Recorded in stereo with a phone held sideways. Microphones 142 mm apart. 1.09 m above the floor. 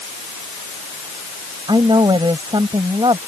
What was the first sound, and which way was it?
A woman speaking, 35° right (ahead or behind).